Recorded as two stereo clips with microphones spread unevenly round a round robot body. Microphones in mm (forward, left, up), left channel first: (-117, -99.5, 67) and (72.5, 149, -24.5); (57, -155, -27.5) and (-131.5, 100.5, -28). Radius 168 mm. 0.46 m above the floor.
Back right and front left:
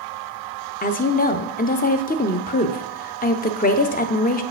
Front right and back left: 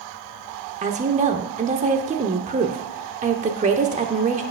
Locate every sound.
0.8 s a woman speaking: 165° left, 0.7 m